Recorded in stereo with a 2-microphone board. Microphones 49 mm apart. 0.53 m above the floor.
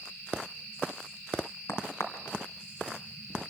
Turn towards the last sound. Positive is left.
turn(degrees=70)  # may be behind; listen again after turning